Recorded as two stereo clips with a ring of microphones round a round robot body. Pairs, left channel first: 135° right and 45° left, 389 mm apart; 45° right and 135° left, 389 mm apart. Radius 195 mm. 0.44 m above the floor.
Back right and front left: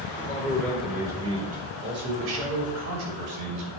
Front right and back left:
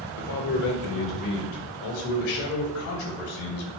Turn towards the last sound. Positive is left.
turn(degrees=5)